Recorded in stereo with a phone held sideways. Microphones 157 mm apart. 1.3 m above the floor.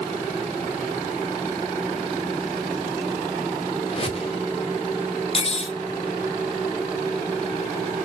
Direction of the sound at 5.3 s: 40° left (ahead or behind).